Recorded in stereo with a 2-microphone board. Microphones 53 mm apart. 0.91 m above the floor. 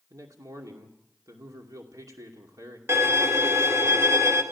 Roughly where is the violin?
Right.